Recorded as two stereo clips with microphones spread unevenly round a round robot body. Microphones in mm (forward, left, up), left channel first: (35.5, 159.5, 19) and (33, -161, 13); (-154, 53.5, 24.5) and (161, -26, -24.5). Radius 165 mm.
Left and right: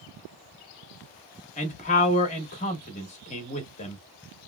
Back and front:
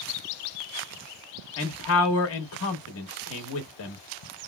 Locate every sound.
1.6 s a man speaking: 140° left, 0.7 m